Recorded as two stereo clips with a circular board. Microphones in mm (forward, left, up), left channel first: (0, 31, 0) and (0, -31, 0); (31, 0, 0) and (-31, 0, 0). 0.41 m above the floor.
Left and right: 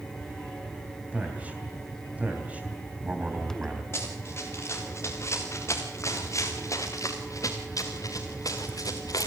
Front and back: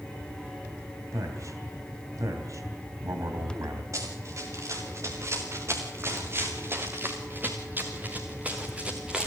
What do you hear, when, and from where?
1.1 s a man speaking: 155° right, 3.5 m
3.9 s running footsteps: 140° left, 4.5 m; by 9.3 s 100° left, 2.5 m